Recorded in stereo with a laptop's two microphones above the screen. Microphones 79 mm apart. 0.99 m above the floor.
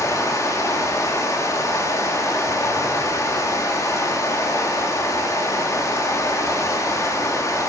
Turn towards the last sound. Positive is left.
turn(degrees=45)  # may be behind; listen again after turning